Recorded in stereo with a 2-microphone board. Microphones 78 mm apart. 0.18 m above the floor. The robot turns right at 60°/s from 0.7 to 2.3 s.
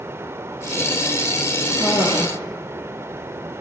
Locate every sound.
1.7 s a cough: 70° left, 4.5 m; by 2.3 s 110° left, 4.5 m